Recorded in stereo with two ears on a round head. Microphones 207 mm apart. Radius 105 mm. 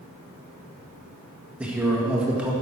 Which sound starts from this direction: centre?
A man speaking, at 1.6 s.